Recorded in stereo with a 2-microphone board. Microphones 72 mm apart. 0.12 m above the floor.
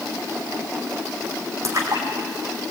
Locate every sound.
1.6 s a splash: 45° right (ahead or behind), 5 m